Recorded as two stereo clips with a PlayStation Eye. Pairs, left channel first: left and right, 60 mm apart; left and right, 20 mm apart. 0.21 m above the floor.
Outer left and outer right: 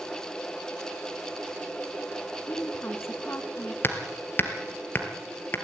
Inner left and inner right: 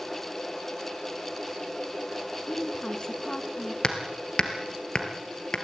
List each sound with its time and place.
2.5 s a woman speaking: 40° left (ahead or behind), 2 m
3.8 s hammering: 40° left (ahead or behind), 2.0 m